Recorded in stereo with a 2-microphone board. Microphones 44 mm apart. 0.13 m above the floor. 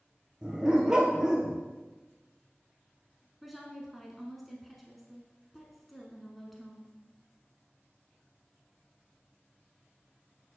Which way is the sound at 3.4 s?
Centre (ahead or behind).